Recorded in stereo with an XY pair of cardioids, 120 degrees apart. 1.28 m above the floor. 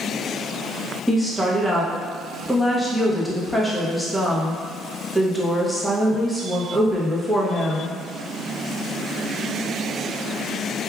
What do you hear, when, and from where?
1.1 s a woman speaking: 5° left, 1.0 m